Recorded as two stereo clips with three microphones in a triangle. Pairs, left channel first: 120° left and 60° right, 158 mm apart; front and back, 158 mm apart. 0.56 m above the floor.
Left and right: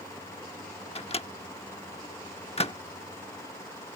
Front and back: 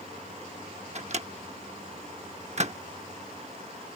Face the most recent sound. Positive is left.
turn(degrees=155)